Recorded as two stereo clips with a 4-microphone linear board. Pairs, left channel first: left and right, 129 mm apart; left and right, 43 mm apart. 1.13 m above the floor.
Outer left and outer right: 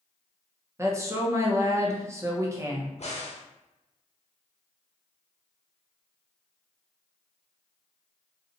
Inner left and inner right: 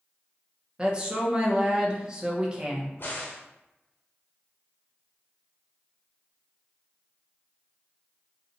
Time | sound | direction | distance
0.8 | a woman speaking | 20° right (ahead or behind) | 0.8 m
3.0 | a crack | 60° left (ahead or behind) | 0.9 m